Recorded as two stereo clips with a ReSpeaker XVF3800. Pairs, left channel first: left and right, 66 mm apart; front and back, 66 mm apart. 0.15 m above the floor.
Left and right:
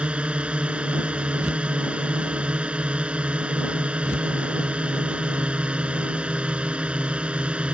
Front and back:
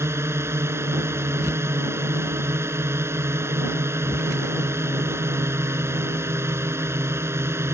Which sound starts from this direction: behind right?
A drone, at 0.0 s.